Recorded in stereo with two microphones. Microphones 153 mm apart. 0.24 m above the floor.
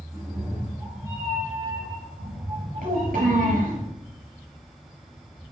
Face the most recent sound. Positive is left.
turn(degrees=-75)  # may be behind; listen again after turning